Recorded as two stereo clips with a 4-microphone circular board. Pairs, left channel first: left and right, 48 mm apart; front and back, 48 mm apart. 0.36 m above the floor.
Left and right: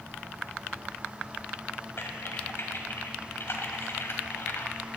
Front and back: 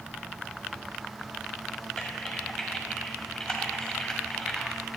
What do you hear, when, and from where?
2.0 s typing on a keyboard: 75° left, 2 m